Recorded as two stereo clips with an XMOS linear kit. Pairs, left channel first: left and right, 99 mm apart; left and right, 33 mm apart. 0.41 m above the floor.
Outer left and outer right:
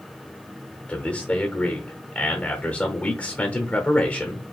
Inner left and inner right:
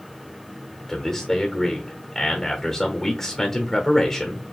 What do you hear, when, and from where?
0.9 s a man speaking: 15° left (ahead or behind), 0.9 m